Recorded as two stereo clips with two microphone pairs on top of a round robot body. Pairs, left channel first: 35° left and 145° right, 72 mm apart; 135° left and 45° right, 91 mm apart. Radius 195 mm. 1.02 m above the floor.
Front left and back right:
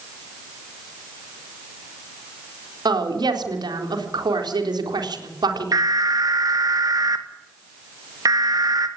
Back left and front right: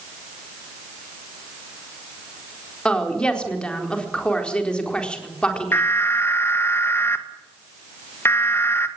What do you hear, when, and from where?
2.9 s a woman speaking: 145° right, 4 m
5.7 s an alarm: 165° right, 2.5 m